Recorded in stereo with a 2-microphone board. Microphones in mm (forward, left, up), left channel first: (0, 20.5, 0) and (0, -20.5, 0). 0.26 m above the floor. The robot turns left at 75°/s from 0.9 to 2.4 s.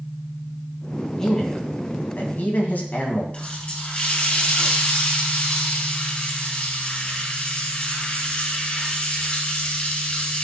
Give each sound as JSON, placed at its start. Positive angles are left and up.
{"t": 1.2, "sound": "a man speaking", "azimuth_deg": 165, "distance_m": 2.0}
{"t": 3.3, "sound": "a running tap", "side_deg": 30, "distance_m": 3.5}